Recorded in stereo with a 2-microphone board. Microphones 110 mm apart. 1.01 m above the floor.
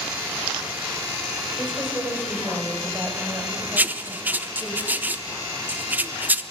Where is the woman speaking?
20° right (ahead or behind), 5 m; by 4.8 s 25° right (ahead or behind), 6.5 m.